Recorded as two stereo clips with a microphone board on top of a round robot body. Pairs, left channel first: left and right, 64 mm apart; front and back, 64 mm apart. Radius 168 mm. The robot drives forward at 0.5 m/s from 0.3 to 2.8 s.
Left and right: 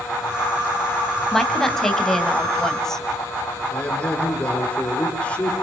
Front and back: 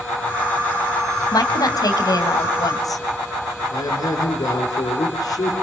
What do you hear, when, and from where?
1.3 s a woman speaking: 5° left, 3.5 m; by 3.0 s 10° left, 2.5 m
3.7 s a man speaking: 15° left, 5 m